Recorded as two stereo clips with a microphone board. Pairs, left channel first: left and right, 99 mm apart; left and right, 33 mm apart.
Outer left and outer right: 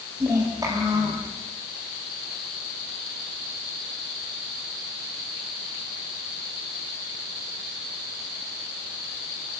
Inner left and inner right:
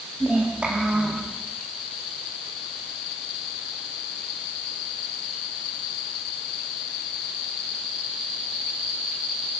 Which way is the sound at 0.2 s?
35° right (ahead or behind).